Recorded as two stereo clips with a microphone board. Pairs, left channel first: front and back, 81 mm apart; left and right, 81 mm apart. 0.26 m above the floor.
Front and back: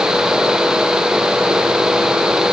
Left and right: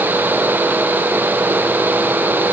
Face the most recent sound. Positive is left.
No sound to turn to.